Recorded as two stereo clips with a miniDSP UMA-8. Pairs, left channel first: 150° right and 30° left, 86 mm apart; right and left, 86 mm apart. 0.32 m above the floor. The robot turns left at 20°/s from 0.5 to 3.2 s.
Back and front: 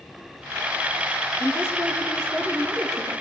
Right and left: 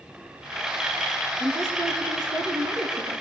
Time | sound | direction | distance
1.4 | a woman speaking | 150° left | 7 m